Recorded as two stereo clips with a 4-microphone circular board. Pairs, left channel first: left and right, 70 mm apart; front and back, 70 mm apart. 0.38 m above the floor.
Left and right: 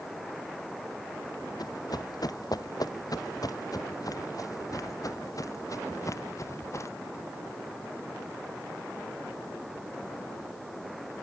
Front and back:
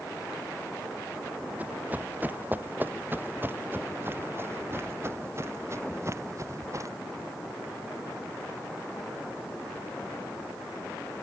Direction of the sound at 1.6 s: 115° left.